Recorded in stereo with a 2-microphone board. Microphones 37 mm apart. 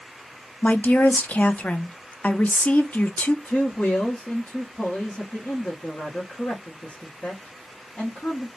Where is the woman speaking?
45° left (ahead or behind), 0.6 m.